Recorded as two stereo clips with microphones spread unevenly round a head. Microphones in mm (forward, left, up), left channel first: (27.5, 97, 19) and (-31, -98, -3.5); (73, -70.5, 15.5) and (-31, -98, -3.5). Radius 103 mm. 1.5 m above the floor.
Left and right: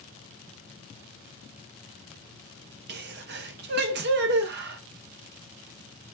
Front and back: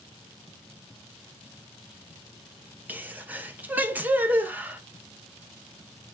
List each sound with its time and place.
2.9 s a sneeze: 85° right, 0.6 m